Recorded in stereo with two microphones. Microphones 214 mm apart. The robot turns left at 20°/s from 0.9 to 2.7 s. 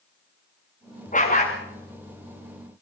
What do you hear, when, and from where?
1.1 s a dog barking: 35° left (ahead or behind), 6 m; by 1.6 s 45° left (ahead or behind), 6 m